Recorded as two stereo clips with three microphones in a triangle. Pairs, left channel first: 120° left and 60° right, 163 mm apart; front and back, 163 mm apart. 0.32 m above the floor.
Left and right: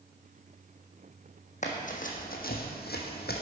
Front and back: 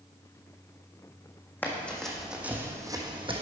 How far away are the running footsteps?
About 1.2 m.